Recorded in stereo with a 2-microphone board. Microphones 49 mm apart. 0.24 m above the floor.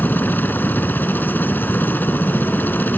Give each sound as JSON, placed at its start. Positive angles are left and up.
{"t": 0.0, "sound": "a helicopter", "side_deg": 40}